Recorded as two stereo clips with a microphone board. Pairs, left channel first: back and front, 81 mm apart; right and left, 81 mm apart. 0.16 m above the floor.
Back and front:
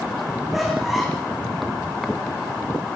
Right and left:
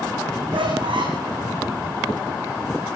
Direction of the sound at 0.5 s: 90° left.